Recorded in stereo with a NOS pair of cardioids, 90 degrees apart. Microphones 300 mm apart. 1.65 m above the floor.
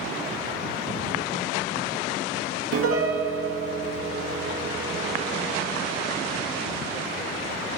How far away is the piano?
About 2 m.